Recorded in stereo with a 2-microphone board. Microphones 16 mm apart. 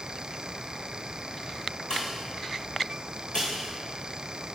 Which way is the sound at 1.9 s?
65° left (ahead or behind).